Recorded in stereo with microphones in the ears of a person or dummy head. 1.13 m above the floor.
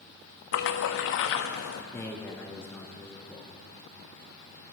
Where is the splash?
70° left (ahead or behind), 0.8 m.